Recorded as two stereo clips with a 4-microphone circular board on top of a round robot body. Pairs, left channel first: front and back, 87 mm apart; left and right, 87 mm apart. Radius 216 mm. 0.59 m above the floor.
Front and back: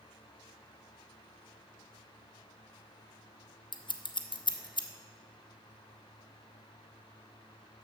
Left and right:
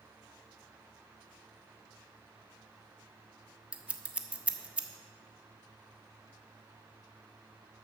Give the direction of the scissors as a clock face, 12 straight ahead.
1 o'clock.